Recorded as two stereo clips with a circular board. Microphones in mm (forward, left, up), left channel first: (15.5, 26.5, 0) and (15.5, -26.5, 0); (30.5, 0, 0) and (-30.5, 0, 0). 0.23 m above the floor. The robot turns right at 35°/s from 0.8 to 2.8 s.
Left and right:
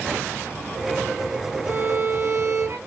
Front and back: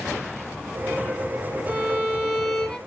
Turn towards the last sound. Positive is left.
turn(degrees=-90)